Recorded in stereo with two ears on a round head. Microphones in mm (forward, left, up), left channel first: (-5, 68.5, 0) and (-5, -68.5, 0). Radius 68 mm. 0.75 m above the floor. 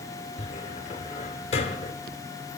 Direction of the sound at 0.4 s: 40° left (ahead or behind).